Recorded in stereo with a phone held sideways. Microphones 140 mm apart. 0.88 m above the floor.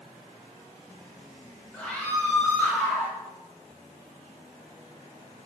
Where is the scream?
10° left (ahead or behind), 5.5 m; by 3.1 s 15° left (ahead or behind), 5 m.